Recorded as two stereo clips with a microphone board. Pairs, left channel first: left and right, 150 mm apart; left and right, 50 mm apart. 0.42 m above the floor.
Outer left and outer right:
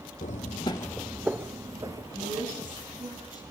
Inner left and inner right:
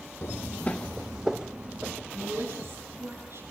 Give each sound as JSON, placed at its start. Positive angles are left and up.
{"t": 0.2, "sound": "footsteps", "side_deg": 60, "distance_m": 0.7}
{"t": 2.1, "sound": "a woman speaking", "side_deg": -60, "distance_m": 6.0}